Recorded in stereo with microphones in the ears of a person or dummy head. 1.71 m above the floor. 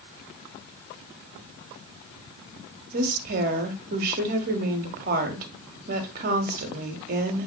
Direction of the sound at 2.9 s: 50° right (ahead or behind).